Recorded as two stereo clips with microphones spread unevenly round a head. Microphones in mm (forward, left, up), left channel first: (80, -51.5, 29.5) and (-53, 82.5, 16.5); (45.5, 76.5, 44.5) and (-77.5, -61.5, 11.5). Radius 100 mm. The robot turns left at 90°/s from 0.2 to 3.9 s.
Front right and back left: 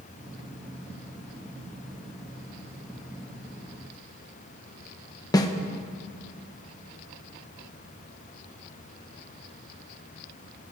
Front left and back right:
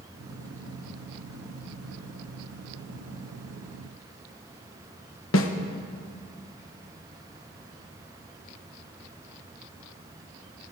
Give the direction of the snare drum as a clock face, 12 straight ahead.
11 o'clock.